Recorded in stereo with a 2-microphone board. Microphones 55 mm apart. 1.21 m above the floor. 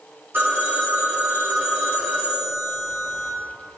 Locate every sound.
0.3 s a phone ringing: 45° right (ahead or behind), 2.5 m